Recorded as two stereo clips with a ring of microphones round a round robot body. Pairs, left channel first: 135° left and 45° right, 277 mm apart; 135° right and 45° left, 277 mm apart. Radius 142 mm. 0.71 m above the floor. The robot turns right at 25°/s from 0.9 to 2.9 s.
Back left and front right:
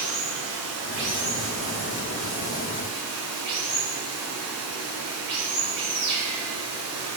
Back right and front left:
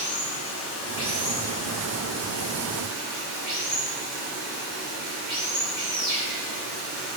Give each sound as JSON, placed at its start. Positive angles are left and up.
{"t": 0.0, "sound": "running water", "azimuth_deg": -65, "distance_m": 1.6}